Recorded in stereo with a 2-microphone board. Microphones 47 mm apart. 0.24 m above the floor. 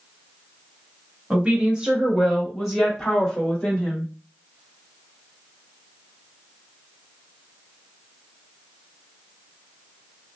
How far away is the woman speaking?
About 1.2 m.